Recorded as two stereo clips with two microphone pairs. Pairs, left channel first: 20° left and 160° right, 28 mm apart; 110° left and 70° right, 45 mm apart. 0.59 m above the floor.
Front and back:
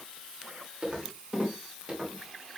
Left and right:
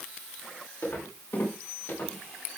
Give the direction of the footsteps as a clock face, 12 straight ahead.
7 o'clock.